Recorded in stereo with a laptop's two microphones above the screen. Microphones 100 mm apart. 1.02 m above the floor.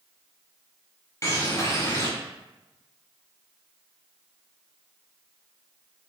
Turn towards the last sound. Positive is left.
turn(degrees=30)  # may be behind; listen again after turning